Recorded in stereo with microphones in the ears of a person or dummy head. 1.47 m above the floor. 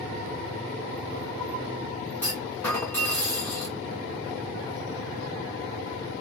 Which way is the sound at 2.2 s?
10° left (ahead or behind).